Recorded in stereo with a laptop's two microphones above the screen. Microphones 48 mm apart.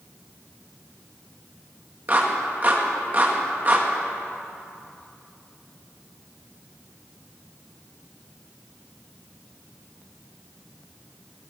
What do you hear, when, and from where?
2.1 s a clap: 35° right (ahead or behind), 1.3 m